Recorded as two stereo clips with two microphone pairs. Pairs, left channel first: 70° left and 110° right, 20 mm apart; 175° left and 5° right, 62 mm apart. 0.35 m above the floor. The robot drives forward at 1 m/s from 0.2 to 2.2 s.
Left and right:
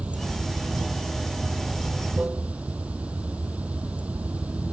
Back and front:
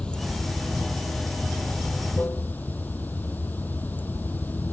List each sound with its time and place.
0.0 s running water: 110° right; by 4.7 s 120° right